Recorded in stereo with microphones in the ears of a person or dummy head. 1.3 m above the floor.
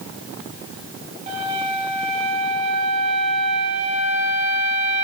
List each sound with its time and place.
1.3 s a flute: 40° right (ahead or behind), 9 m